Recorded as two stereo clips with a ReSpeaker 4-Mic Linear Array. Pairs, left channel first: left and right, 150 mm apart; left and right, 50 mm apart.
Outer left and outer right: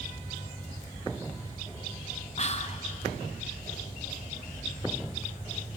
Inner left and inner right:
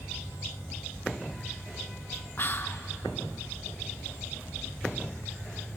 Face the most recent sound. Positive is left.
turn(degrees=45)  # may be behind; listen again after turning